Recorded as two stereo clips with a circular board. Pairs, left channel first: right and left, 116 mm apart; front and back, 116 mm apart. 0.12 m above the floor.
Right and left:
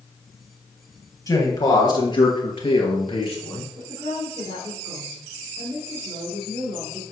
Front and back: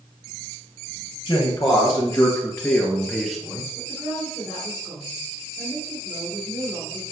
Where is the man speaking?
35° right, 2 m; by 3.7 s 100° right, 1.9 m.